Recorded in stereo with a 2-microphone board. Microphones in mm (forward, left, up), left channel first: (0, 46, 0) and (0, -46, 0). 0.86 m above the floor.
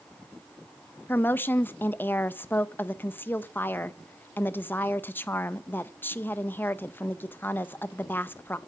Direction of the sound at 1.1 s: 20° left (ahead or behind).